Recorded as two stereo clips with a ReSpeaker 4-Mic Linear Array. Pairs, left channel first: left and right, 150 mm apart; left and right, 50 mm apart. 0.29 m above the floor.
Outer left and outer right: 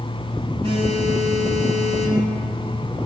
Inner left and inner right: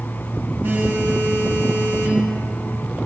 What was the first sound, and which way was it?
A phone buzzing, 35° right (ahead or behind).